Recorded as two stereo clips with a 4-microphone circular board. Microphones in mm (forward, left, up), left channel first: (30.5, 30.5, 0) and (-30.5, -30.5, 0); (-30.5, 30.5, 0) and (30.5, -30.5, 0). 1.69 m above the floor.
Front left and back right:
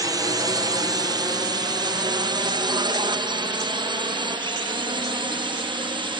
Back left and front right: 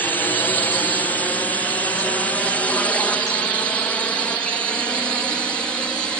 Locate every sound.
0.0 s a drone: 160° right; by 6.2 s 145° right